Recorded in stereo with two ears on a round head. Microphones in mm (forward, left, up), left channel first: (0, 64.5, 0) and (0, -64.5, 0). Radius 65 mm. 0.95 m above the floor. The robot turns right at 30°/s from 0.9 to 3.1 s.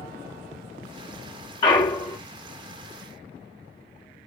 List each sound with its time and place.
1.6 s a clunk: 30° left (ahead or behind), 0.8 m; by 2.2 s 25° left (ahead or behind), 0.8 m